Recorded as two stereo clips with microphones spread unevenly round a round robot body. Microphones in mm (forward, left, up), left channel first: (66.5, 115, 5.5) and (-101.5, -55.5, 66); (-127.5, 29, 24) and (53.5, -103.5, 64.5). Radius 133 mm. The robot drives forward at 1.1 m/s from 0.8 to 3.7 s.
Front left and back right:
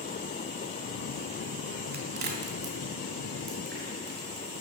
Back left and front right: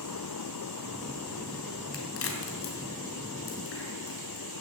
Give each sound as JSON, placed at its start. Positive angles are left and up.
{"t": 1.9, "sound": "a crack", "azimuth_deg": 170, "distance_m": 2.5}